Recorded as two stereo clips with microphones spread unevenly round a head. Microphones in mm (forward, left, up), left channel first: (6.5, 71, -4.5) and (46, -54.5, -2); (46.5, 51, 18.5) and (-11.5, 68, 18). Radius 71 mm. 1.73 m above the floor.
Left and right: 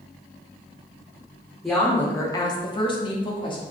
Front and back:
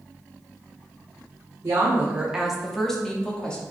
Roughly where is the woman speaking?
Behind.